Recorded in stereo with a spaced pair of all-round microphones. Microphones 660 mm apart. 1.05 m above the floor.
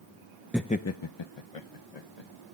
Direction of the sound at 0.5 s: 5° right (ahead or behind).